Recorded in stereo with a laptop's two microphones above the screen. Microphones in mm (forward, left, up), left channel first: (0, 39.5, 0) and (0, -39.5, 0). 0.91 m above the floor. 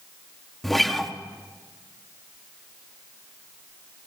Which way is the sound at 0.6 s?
5° left (ahead or behind).